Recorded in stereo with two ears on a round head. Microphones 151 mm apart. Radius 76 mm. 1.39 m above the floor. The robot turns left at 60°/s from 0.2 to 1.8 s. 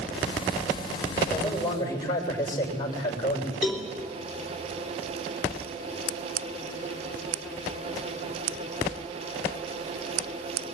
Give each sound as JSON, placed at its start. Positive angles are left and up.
{"t": 1.3, "sound": "a man speaking", "azimuth_deg": -175, "distance_m": 7.0}
{"t": 3.6, "sound": "a cowbell", "side_deg": 0, "distance_m": 3.0}